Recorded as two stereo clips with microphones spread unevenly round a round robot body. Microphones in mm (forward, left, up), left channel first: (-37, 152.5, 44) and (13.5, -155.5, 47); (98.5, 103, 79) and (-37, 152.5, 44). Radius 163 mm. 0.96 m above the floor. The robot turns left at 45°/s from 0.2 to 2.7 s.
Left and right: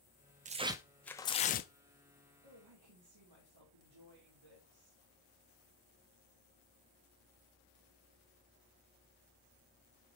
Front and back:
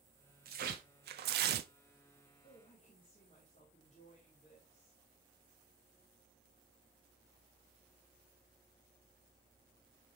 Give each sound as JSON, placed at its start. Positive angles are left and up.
{"t": 0.5, "sound": "tearing paper", "azimuth_deg": -145, "distance_m": 0.5}
{"t": 2.4, "sound": "a woman speaking", "azimuth_deg": -75, "distance_m": 2.0}